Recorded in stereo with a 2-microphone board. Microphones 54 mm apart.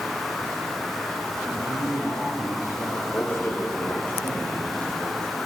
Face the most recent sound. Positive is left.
turn(degrees=35)  # may be behind; listen again after turning